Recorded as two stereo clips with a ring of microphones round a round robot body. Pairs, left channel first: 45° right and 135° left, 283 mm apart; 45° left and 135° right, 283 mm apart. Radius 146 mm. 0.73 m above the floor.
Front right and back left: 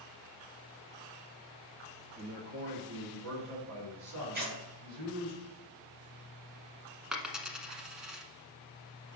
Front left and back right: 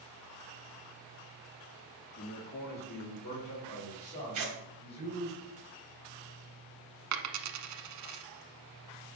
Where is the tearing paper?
170° right, 3 m.